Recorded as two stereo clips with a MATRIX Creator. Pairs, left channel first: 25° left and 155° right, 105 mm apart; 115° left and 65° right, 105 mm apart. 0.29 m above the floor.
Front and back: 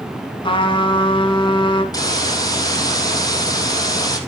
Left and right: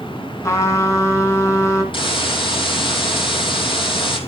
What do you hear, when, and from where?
0.4 s a trumpet: 55° left, 3.5 m
1.9 s a hiss: 75° left, 3 m